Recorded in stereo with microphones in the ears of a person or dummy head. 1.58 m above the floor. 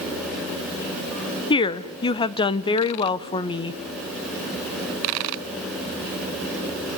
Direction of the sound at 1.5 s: 20° left (ahead or behind).